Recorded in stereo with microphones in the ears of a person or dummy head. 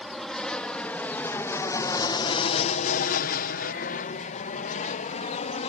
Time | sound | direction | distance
0.0 | an aircraft | 5° left (ahead or behind) | ?